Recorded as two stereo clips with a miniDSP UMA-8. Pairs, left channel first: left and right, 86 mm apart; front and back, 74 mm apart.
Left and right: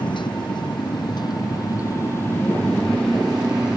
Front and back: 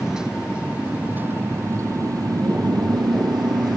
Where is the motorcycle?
95° left; by 3.8 s 170° right.